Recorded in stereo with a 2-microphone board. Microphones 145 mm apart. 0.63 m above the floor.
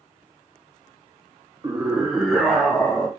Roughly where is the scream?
Right.